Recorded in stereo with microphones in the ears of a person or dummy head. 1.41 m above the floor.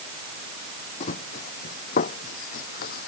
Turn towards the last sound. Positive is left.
turn(degrees=55)  # may be behind; listen again after turning